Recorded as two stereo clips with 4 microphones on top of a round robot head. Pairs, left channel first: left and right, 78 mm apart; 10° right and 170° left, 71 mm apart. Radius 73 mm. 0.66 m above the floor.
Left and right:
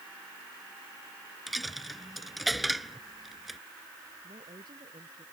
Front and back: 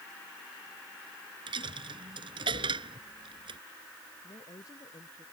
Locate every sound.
1.5 s a dropped coin: straight behind
4.2 s a woman speaking: 55° right